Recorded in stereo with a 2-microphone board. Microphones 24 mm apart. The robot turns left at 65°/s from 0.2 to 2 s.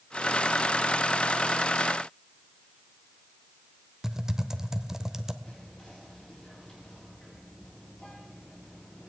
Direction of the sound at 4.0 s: 25° right (ahead or behind).